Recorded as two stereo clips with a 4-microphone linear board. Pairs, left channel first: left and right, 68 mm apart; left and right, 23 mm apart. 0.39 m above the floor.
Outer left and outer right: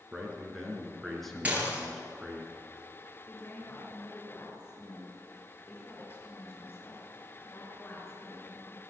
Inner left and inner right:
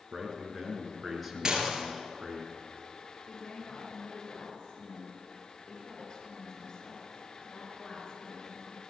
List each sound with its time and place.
0.1 s a man speaking: centre (ahead or behind), 5.5 m
1.4 s dishes clattering: 25° right (ahead or behind), 4.5 m
3.3 s a woman speaking: 40° left (ahead or behind), 5.5 m